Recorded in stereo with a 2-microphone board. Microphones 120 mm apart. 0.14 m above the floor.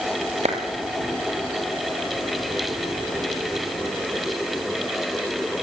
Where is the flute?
No flute in this recording.